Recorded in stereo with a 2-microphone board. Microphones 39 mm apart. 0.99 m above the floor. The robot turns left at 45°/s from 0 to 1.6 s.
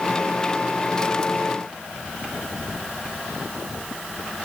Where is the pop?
I don't hear a pop.